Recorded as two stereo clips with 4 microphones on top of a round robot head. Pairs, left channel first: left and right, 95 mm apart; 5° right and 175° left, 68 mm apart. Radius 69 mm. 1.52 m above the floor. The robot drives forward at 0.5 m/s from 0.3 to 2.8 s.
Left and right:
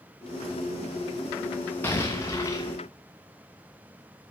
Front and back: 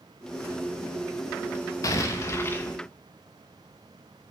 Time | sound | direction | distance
1.8 | an explosion | 20° left | 1.0 m